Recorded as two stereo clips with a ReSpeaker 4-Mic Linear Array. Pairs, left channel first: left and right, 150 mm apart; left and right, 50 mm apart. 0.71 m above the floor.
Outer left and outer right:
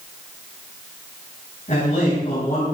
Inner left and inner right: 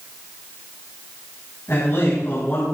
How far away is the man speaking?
About 5.5 m.